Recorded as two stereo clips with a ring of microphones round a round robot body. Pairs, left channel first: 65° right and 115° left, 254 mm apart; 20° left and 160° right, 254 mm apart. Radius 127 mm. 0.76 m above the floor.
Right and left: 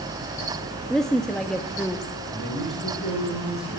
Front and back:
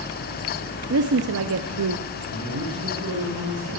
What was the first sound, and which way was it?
A woman speaking, 155° right.